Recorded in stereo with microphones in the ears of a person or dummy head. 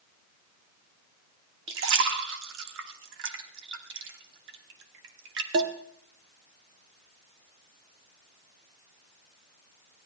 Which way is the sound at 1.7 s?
65° right (ahead or behind).